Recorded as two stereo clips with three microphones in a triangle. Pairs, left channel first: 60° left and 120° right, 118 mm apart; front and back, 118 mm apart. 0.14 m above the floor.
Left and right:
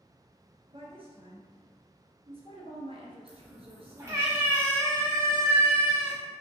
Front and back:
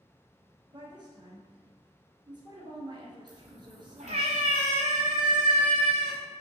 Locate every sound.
0.7 s a woman speaking: 140° right, 2 m
3.3 s a cat meowing: 175° left, 2.5 m